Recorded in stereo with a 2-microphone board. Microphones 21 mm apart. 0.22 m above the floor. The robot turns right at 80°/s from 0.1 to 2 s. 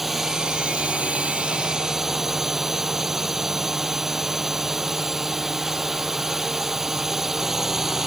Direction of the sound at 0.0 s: 170° right.